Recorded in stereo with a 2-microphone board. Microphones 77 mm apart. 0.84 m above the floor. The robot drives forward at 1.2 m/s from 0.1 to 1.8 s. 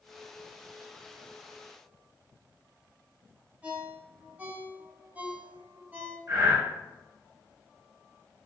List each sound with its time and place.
3.6 s a ringtone: 20° right (ahead or behind), 3.5 m
6.3 s breathing: 40° right (ahead or behind), 3.5 m